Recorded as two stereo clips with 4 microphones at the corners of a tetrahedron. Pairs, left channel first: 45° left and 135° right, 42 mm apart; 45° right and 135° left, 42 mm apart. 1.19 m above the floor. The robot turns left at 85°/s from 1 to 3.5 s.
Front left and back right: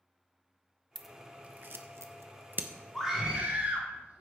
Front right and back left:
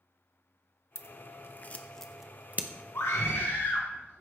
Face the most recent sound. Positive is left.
turn(degrees=-85)